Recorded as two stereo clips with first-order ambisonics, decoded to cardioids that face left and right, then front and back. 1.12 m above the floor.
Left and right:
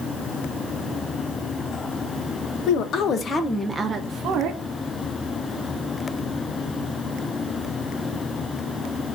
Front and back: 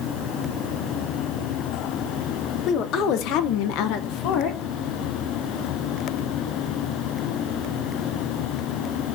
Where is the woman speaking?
50° left, 1.3 m; by 4.6 s 45° right, 1.3 m.